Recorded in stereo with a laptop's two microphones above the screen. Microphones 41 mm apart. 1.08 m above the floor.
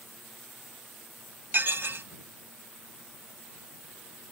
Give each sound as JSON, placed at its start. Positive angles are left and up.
{"t": 1.5, "sound": "dishes clattering", "side_deg": -55}